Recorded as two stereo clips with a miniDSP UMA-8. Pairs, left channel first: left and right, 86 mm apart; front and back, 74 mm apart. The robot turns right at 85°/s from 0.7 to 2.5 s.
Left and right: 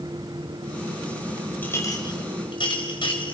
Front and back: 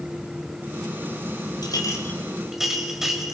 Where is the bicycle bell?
No bicycle bell in this recording.